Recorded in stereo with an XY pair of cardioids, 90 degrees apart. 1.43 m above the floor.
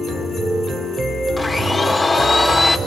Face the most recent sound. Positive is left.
turn(degrees=35)